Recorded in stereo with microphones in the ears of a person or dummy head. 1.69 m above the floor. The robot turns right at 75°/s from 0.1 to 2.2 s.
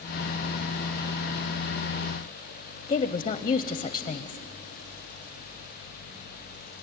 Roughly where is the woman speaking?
Left.